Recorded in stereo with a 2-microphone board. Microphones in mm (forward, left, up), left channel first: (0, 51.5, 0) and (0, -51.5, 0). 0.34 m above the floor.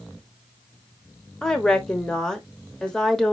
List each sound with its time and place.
1.4 s a woman speaking: 5° left (ahead or behind), 0.8 m